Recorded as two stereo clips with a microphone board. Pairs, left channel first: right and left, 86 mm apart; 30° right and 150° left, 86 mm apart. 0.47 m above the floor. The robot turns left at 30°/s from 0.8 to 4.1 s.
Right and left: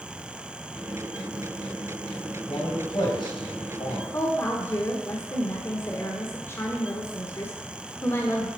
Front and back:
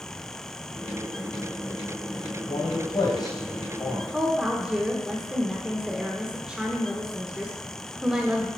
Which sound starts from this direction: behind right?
A woman speaking, at 4.1 s.